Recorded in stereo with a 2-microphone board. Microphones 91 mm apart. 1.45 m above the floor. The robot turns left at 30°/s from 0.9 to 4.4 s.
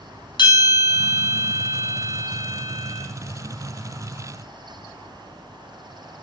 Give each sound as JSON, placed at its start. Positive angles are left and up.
{"t": 0.4, "sound": "a bell", "azimuth_deg": 75, "distance_m": 2.5}